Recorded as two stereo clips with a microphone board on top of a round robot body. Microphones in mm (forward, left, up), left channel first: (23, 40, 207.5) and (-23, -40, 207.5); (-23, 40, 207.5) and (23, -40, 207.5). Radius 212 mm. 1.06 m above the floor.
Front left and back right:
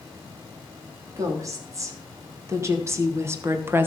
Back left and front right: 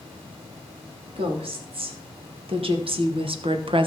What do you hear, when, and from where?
1.2 s a woman speaking: 65° right, 3 m; by 3.9 s 55° right, 1.2 m